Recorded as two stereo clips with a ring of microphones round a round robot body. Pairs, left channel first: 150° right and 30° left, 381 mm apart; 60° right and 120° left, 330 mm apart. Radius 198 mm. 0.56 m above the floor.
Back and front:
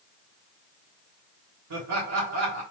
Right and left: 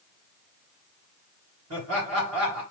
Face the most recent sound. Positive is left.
turn(degrees=75)